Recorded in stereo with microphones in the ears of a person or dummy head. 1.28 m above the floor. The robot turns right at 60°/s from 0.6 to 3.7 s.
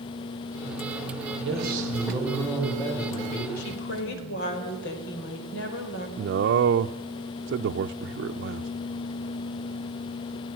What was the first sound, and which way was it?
A man speaking, 70° right.